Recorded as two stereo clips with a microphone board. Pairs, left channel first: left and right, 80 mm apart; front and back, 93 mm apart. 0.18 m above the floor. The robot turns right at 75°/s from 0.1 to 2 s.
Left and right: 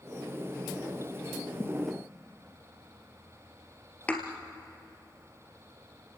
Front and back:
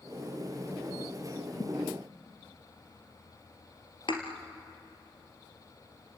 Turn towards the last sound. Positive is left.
turn(degrees=20)